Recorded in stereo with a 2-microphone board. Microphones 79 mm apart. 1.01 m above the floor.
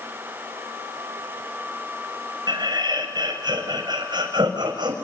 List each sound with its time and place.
2.5 s laughter: 65° right (ahead or behind), 6 m